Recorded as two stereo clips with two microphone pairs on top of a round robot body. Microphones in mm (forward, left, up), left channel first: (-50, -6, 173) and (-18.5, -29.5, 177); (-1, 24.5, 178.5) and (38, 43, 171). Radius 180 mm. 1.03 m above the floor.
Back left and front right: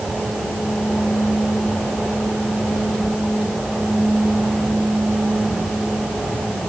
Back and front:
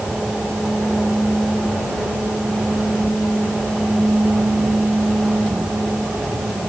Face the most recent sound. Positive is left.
No sound to turn to.